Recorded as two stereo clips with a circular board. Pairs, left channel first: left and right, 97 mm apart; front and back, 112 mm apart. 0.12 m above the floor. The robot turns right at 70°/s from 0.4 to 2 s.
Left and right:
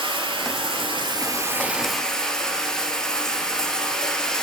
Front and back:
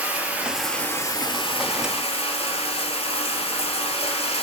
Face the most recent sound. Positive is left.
turn(degrees=5)